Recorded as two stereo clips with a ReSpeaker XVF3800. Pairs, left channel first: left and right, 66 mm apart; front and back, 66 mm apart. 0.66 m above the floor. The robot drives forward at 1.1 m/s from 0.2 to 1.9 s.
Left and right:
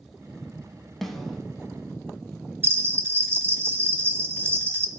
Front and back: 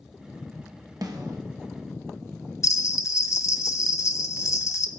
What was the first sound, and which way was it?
A snare drum, 175° left.